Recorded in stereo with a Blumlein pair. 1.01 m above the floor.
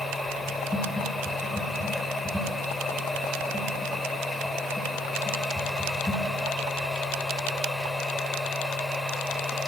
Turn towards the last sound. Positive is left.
turn(degrees=10)